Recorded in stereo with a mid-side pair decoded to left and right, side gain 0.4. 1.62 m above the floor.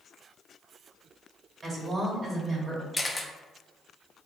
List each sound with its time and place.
1.6 s a woman speaking: 45° right, 1.3 m
2.9 s a camera shutter: 10° left, 0.5 m